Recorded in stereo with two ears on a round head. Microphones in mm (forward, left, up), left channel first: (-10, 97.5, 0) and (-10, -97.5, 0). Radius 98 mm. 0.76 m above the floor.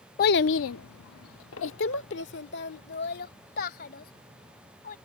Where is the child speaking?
45° left (ahead or behind); by 5.0 s 40° left (ahead or behind).